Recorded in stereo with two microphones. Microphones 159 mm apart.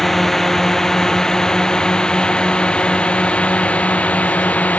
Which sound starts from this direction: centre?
A drone, at 0.0 s.